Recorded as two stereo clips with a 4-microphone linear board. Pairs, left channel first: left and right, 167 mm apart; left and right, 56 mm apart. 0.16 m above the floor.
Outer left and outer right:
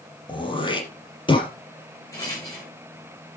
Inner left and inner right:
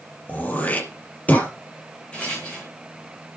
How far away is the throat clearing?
About 4.5 m.